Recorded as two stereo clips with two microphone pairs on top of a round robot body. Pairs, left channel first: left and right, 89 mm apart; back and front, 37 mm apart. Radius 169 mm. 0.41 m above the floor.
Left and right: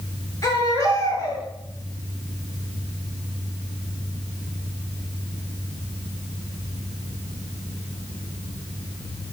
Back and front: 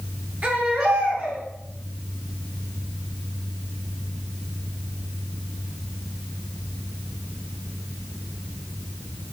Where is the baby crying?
40° left, 8 m.